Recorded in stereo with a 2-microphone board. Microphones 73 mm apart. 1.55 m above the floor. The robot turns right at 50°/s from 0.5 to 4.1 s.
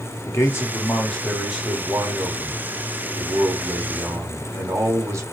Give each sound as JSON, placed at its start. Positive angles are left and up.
{"t": 0.2, "sound": "a man speaking", "azimuth_deg": 140, "distance_m": 1.2}